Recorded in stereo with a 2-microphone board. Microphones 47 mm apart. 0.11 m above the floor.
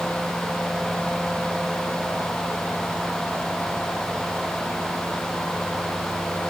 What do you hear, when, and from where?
Only background noise.